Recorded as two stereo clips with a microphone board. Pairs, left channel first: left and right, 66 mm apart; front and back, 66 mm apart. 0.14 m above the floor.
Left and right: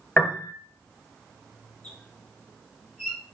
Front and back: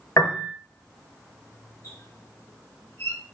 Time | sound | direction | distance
0.2 | a piano | 25° left | 0.7 m
1.8 | a squeak | 5° left | 1.3 m